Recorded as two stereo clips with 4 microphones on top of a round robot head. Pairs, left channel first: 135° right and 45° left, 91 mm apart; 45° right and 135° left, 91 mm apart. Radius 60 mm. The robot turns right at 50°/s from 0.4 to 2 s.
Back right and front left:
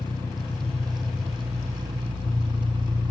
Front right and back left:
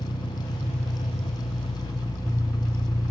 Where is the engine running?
75° right, 0.9 m; by 3.1 s 5° left, 0.9 m.